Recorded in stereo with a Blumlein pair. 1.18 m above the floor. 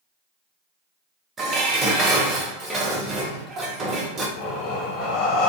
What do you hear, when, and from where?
1.4 s dishes clattering: 20° right, 0.7 m
4.4 s breathing: 35° left, 0.5 m